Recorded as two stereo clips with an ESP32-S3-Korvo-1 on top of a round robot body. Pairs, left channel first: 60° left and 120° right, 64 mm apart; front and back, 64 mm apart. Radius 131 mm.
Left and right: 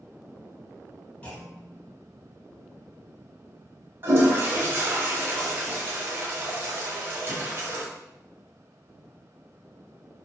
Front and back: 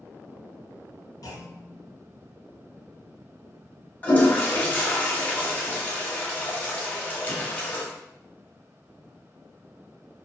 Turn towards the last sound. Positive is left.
turn(degrees=-65)